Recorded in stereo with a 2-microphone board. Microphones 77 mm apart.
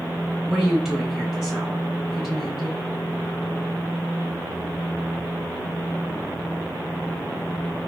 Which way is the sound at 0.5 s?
5° right (ahead or behind).